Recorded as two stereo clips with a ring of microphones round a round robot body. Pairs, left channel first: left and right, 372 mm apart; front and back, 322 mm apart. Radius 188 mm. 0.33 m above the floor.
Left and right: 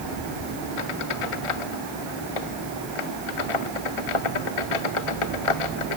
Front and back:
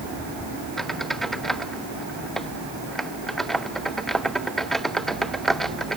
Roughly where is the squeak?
Left.